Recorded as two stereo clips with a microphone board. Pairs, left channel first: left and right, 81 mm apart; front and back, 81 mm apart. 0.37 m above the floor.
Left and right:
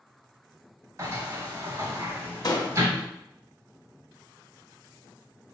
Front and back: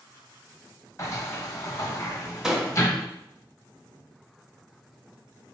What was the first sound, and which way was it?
A sliding door, 45° right.